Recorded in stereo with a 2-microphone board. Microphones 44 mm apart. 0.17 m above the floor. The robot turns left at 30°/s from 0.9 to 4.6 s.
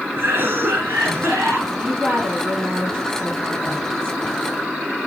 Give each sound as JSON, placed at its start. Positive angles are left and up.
{"t": 0.2, "sound": "a cough", "side_deg": -60, "distance_m": 3.0}
{"t": 1.7, "sound": "a woman speaking", "azimuth_deg": -150, "distance_m": 4.0}